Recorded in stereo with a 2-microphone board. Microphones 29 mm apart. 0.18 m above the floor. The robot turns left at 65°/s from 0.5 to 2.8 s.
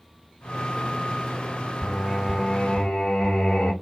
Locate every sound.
1.8 s singing: straight behind, 3 m; by 3.7 s 115° left, 3 m